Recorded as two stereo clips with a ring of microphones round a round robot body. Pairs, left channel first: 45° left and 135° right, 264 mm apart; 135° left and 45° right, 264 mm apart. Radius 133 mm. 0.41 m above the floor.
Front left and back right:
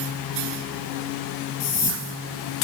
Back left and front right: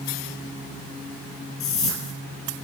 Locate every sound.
1.6 s a whoosh: 95° left, 3 m